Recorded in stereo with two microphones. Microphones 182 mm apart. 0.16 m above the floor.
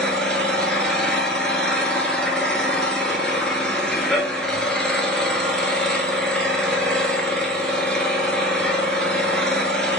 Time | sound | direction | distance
0.0 | an engine running | 5° left (ahead or behind) | 1.0 m